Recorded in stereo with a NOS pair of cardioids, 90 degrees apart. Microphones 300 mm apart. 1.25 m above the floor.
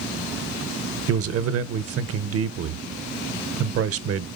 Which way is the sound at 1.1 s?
50° right.